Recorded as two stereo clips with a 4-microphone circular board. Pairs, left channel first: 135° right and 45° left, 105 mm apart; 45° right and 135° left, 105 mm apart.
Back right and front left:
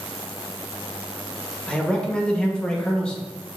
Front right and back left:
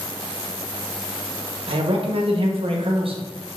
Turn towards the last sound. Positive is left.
turn(degrees=145)